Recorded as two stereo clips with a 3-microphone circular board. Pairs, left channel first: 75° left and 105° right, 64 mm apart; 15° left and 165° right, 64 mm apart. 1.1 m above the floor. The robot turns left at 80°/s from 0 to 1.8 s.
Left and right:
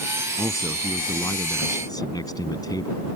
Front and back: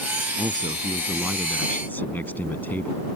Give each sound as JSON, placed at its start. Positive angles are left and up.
{"t": 0.4, "sound": "a man speaking", "azimuth_deg": -170}